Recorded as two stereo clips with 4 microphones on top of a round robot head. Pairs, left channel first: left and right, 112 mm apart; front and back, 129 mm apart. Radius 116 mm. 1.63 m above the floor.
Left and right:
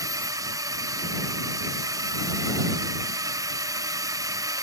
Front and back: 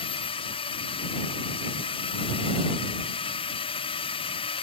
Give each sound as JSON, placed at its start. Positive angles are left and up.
{"t": 0.0, "sound": "a drone", "azimuth_deg": -40}